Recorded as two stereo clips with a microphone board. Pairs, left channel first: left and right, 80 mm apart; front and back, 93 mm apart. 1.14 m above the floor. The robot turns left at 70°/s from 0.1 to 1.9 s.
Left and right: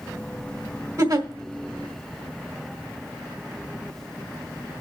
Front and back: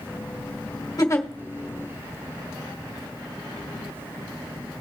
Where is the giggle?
50° right, 1.8 m; by 1.3 s 70° right, 1.8 m.